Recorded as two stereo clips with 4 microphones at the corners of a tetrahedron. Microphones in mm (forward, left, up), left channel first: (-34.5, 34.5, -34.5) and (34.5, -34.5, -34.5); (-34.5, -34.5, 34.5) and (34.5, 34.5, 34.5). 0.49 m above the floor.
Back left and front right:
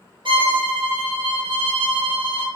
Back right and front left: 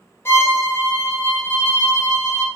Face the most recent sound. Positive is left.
turn(degrees=-70)